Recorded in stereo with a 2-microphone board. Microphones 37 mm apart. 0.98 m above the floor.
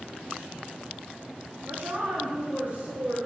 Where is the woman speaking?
45° right (ahead or behind), 1.6 m; by 3.2 s 40° right (ahead or behind), 3 m.